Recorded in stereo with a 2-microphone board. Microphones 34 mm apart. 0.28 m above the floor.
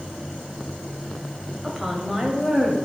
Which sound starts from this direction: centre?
A woman speaking, at 1.6 s.